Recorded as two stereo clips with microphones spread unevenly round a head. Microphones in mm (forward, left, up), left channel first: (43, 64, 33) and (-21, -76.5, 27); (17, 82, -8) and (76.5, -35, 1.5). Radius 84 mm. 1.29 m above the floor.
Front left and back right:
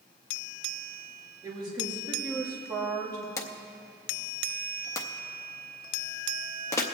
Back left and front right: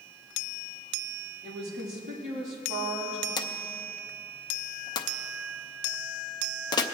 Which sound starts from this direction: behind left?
A drawer, at 3.4 s.